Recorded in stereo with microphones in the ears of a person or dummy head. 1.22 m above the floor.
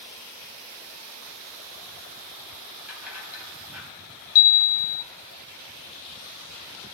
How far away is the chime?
About 0.6 m.